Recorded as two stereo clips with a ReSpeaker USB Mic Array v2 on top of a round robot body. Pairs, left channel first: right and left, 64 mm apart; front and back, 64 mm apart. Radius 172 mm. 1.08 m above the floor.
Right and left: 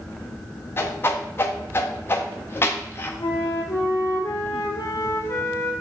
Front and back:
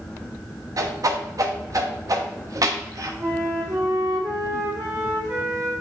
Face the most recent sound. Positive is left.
turn(degrees=-135)